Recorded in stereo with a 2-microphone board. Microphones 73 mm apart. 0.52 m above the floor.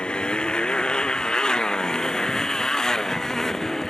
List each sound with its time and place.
0.0 s a motorcycle: 15° left (ahead or behind); by 3.9 s 5° left (ahead or behind)